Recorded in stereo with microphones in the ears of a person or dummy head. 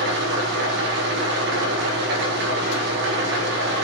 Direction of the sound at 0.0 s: 60° right (ahead or behind).